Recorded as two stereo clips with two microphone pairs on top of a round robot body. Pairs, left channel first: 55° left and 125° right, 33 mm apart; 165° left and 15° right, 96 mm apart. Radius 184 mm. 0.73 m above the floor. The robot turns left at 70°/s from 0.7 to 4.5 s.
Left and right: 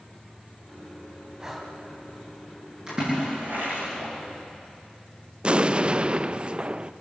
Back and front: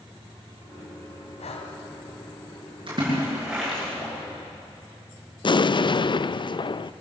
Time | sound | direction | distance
1.4 | breathing | 170° left | 2.5 m
2.9 | a splash | 50° right | 8.5 m
5.4 | an explosion | 175° right | 0.6 m